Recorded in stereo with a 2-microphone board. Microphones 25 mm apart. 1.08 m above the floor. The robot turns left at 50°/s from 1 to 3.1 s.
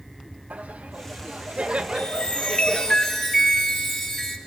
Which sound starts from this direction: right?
Laughter, at 0.5 s.